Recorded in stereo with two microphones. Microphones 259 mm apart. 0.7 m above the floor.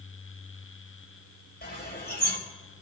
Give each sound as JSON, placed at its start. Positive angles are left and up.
{"t": 1.6, "sound": "a bird", "side_deg": 40, "distance_m": 3.0}